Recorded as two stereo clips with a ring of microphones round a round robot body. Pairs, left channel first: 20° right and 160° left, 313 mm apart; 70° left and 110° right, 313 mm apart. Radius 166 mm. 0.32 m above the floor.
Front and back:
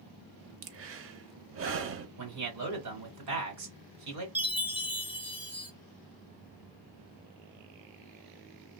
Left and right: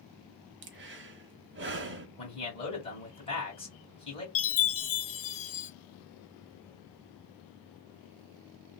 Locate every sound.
0.6 s breathing: 160° right, 0.6 m
2.2 s a man speaking: 140° left, 2 m
4.3 s a chime: 75° left, 0.9 m